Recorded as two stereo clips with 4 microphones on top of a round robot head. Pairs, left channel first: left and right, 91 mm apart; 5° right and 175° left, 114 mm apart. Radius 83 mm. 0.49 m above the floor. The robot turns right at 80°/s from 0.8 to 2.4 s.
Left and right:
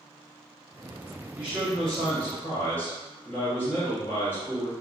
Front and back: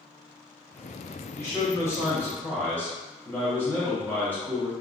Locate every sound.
1.4 s a man speaking: 35° right, 0.8 m; by 4.7 s 50° left, 0.8 m